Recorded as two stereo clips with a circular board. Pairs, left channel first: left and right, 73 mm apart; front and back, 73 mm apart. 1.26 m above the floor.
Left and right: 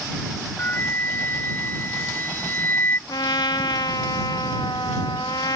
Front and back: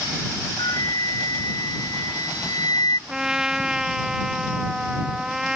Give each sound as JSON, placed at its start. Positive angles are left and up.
{"t": 0.6, "sound": "a flute", "azimuth_deg": 30}
{"t": 3.1, "sound": "a trumpet", "azimuth_deg": 100}